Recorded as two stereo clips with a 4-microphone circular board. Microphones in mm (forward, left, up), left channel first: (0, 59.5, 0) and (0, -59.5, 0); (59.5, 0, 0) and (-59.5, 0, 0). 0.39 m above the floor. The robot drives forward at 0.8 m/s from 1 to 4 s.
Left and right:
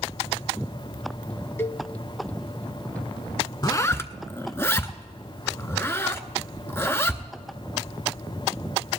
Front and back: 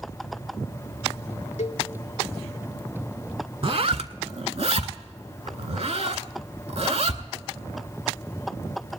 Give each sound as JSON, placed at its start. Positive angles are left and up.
{"t": 1.6, "sound": "a cowbell", "azimuth_deg": 20, "distance_m": 0.6}
{"t": 3.6, "sound": "a zipper", "azimuth_deg": 145, "distance_m": 0.5}